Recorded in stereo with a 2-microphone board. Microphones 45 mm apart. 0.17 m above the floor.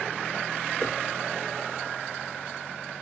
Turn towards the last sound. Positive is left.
turn(degrees=35)  # may be behind; listen again after turning